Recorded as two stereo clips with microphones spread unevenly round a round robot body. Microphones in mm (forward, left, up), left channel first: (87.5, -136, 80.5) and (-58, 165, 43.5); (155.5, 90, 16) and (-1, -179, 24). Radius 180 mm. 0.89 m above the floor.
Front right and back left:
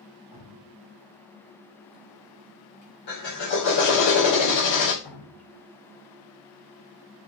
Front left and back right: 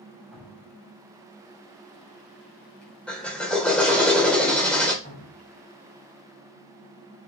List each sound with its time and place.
0.3 s dripping: 30° right, 4 m
3.1 s a drill: 25° right, 3.5 m
5.0 s dripping: 5° right, 3.5 m